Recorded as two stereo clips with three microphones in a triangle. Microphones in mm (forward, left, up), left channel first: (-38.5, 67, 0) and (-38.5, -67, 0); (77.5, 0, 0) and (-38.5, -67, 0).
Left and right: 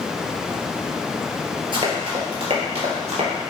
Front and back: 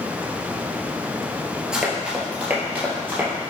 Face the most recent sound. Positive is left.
turn(degrees=-80)